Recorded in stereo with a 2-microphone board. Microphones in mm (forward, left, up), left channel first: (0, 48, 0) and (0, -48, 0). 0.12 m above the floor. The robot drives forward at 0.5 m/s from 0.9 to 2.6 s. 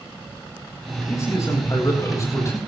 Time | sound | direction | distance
1.1 | a man speaking | 35° left (ahead or behind) | 9.5 m